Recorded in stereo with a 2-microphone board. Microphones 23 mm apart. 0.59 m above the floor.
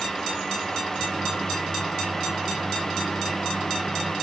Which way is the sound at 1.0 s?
10° left (ahead or behind).